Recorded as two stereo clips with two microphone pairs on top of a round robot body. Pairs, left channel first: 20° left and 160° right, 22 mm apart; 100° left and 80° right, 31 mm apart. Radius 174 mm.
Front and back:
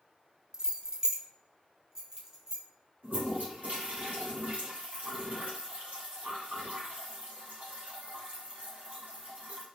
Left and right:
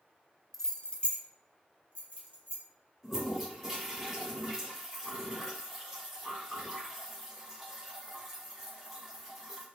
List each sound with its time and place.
0.5 s keys jangling: 170° left, 0.6 m; by 2.6 s 140° left, 1.4 m
3.0 s a toilet flushing: 170° right, 1.6 m